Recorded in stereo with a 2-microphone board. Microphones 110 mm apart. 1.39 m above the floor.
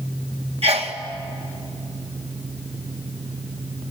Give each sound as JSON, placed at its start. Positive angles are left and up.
{"t": 0.6, "sound": "a sneeze", "side_deg": -65, "distance_m": 1.9}